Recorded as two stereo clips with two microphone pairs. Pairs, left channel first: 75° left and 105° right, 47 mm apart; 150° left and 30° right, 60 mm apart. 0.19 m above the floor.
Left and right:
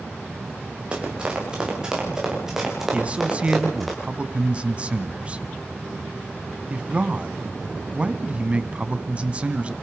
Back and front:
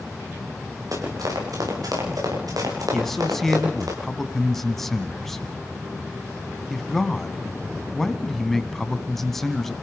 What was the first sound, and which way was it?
Running footsteps, 40° right.